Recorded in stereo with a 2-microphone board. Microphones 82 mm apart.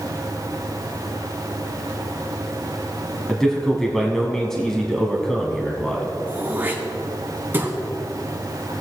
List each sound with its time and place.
3.3 s a man speaking: 5° left (ahead or behind), 1.1 m
6.3 s throat clearing: 25° right (ahead or behind), 1.8 m